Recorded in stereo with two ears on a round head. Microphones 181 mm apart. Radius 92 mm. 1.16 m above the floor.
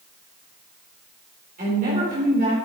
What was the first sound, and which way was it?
A woman speaking, 35° right (ahead or behind).